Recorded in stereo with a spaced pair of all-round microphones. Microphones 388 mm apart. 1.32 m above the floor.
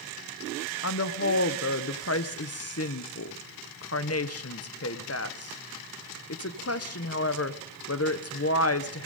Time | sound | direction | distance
0.8 | a woman speaking | 40° left (ahead or behind) | 0.8 m